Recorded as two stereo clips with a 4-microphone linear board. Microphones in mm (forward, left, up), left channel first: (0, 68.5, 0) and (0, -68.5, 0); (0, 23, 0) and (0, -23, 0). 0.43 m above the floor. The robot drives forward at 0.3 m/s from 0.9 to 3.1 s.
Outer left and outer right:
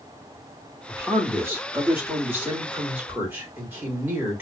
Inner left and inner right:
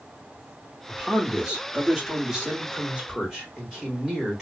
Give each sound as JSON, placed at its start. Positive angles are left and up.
{"t": 0.9, "sound": "a man speaking", "side_deg": -15, "distance_m": 1.1}